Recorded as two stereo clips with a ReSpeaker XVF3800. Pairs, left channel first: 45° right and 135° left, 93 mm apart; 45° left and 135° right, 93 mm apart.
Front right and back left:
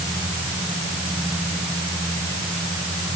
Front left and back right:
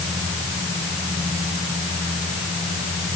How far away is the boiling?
No boiling in this recording.